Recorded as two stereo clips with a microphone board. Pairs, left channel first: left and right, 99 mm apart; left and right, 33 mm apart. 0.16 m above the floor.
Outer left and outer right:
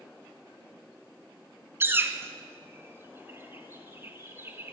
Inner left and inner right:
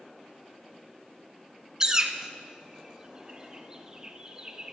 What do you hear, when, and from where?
1.8 s a bird: 25° right (ahead or behind), 0.7 m